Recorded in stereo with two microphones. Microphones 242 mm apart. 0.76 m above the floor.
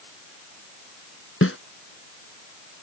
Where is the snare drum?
60° left (ahead or behind).